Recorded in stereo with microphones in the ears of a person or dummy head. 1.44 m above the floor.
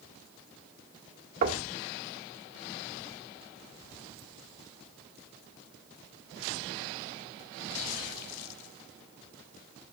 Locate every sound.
1.4 s knocking: 50° right (ahead or behind), 1.9 m